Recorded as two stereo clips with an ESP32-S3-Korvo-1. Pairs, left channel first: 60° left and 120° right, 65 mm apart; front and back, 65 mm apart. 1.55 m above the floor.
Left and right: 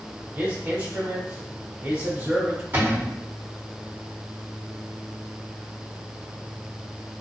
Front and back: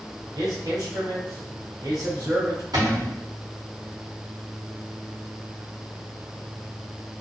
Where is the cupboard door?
175° right, 1.1 m.